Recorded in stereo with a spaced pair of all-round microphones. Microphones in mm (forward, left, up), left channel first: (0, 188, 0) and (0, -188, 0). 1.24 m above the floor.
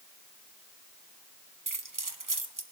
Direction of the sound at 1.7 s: 55° right (ahead or behind).